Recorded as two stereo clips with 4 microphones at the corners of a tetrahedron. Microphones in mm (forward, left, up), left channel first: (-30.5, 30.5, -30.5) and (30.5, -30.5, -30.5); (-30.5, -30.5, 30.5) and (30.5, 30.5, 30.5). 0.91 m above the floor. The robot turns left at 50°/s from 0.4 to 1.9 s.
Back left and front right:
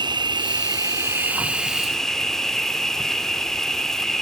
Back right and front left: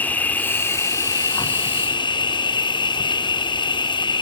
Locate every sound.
0.0 s an insect: 65° right, 0.8 m; by 4.2 s 140° right, 0.8 m